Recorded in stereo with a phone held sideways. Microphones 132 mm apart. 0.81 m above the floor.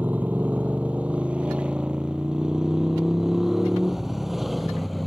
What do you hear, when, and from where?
0.0 s a motorcycle: 15° right (ahead or behind); by 5.1 s centre (ahead or behind)